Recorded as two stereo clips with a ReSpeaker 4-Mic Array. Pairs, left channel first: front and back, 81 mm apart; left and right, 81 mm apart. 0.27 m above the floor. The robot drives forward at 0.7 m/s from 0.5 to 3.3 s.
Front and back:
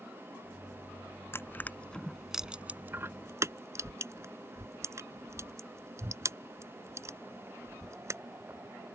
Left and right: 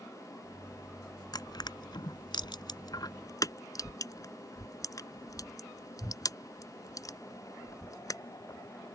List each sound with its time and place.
1.3 s crushing: 60° left; by 8.2 s 130° left